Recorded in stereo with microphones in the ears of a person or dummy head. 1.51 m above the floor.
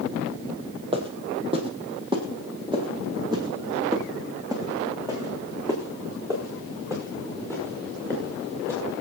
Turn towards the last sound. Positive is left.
turn(degrees=-15)  # may be behind; listen again after turning